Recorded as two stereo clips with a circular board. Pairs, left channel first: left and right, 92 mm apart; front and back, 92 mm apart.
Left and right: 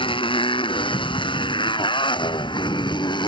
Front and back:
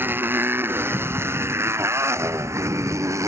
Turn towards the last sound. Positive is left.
turn(degrees=125)